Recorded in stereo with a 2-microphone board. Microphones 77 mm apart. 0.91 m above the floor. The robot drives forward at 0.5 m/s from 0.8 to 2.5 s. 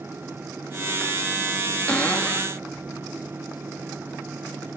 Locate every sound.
1.9 s a cupboard door: 15° left (ahead or behind), 1.9 m; by 2.5 s 20° left (ahead or behind), 1.7 m